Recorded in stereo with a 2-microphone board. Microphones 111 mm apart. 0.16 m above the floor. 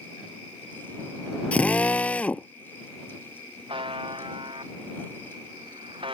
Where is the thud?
I don't hear a thud.